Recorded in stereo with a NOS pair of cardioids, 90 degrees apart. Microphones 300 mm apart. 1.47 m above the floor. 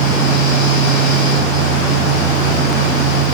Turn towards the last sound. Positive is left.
turn(degrees=60)